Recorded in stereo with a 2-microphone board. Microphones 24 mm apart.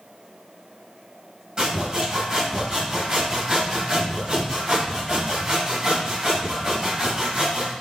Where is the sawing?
30° right (ahead or behind), 4 m.